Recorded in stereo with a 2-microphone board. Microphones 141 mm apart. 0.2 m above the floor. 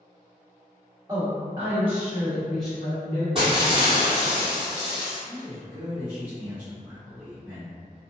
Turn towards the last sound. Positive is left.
turn(degrees=-10)  # may be behind; listen again after turning